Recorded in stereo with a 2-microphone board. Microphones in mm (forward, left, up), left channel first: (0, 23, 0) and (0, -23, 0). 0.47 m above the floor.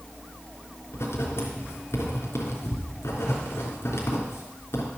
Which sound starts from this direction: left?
Writing, at 0.9 s.